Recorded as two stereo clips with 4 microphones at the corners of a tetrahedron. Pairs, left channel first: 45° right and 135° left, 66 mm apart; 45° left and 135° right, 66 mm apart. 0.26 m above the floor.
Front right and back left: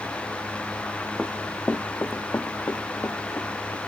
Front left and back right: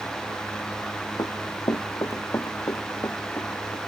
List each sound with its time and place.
1.2 s running footsteps: 45° left; by 3.8 s 5° right